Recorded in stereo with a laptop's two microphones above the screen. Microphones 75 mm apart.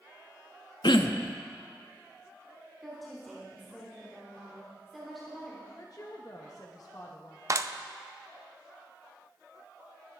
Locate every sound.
0.8 s throat clearing: 80° left, 0.6 m
2.8 s a woman speaking: centre (ahead or behind), 2.5 m
5.8 s a woman speaking: 50° left (ahead or behind), 1.1 m
7.5 s a clap: 45° right (ahead or behind), 0.6 m